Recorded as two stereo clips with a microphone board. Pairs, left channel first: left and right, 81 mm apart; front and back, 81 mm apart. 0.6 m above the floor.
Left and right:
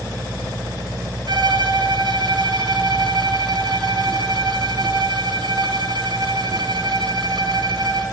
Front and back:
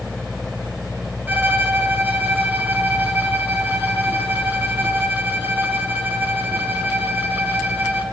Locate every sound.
1.3 s a violin: 110° right, 3.5 m